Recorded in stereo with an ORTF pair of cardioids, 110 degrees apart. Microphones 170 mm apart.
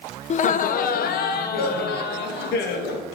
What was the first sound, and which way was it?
Laughter, 40° left.